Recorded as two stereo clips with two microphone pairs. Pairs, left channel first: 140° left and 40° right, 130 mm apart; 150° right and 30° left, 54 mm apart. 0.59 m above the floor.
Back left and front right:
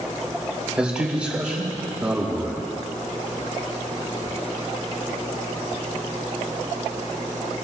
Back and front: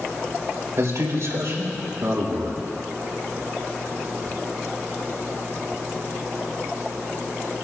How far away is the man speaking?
About 3 m.